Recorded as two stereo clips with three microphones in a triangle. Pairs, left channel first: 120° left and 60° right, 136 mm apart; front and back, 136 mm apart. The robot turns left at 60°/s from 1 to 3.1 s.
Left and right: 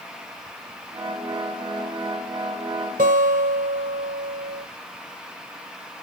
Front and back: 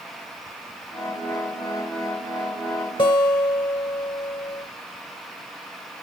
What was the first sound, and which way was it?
A guitar, 55° right.